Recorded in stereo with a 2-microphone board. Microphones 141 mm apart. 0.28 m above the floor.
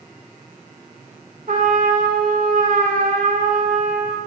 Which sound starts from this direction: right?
A trumpet, at 1.5 s.